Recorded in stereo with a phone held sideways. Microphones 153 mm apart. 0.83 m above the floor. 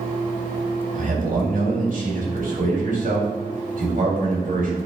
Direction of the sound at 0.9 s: 65° right (ahead or behind).